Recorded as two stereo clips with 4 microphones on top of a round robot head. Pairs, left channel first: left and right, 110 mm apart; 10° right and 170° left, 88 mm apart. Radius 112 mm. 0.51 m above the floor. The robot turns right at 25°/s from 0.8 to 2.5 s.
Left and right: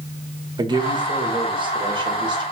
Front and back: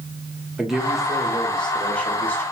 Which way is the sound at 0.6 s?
110° right.